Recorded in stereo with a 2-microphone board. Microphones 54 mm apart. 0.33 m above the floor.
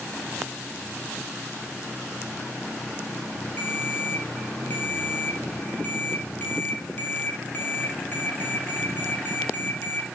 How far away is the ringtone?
About 6 m.